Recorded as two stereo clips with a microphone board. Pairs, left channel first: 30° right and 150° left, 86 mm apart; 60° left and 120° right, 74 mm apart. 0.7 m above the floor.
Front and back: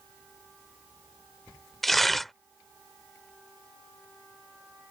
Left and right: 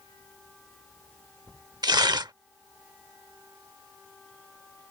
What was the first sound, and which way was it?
Tearing paper, 120° right.